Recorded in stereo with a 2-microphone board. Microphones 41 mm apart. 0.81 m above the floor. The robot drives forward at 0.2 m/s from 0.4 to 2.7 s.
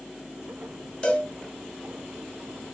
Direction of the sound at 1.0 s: 25° left (ahead or behind).